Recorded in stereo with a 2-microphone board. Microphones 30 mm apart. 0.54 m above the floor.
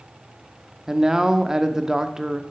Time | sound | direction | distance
0.9 | a man speaking | 20° right (ahead or behind) | 0.8 m